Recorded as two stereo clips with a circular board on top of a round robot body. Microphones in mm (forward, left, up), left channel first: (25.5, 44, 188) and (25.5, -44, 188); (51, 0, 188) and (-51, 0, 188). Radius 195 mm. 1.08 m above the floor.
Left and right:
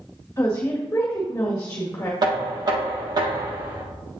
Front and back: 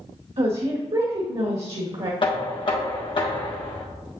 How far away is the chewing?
I don't hear chewing.